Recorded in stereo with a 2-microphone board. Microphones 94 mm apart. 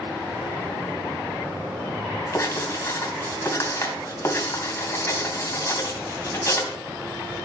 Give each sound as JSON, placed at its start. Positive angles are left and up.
{"t": 2.3, "sound": "writing", "side_deg": 30, "distance_m": 2.5}